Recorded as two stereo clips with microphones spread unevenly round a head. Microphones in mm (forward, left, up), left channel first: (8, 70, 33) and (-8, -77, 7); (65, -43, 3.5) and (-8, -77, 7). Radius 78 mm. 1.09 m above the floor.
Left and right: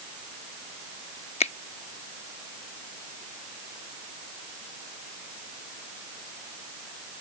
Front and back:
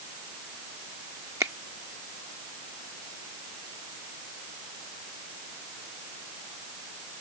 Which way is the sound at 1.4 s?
135° left.